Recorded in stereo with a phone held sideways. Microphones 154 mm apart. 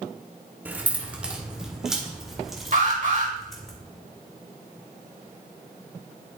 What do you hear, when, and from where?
0.7 s keys jangling: 10° right (ahead or behind), 1.4 m; by 3.7 s centre (ahead or behind), 3 m
2.7 s an alarm: 60° right (ahead or behind), 4 m